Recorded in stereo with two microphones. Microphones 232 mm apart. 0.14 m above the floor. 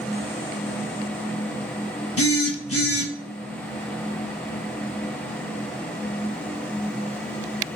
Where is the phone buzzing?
75° left (ahead or behind), 0.8 m.